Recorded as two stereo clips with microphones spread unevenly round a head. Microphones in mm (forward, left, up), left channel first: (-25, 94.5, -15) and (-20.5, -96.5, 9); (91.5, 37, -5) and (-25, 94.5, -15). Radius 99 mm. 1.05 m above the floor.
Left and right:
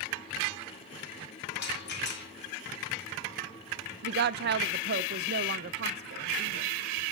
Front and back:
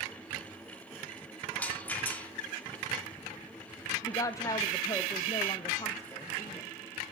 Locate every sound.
1.5 s a rattle: 55° left, 2.5 m
4.0 s a woman speaking: 95° right, 0.7 m